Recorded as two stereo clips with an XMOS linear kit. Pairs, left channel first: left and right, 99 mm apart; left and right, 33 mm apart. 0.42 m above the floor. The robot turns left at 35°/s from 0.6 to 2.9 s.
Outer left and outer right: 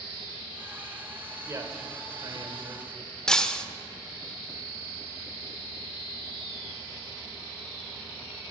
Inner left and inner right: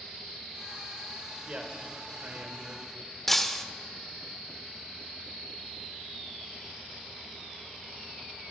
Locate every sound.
1.4 s a man speaking: 30° right (ahead or behind), 1.3 m; by 2.9 s 50° right (ahead or behind), 1.3 m
3.3 s breaking glass: 5° left (ahead or behind), 0.5 m